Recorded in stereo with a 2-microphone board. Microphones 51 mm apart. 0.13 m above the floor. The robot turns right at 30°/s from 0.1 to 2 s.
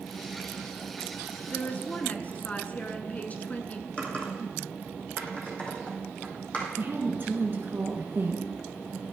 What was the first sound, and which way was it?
A woman speaking, 35° left (ahead or behind).